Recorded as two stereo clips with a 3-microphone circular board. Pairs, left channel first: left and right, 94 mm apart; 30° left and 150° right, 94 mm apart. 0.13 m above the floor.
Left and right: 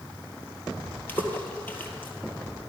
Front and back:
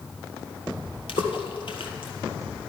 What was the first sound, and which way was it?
A splash, 20° left.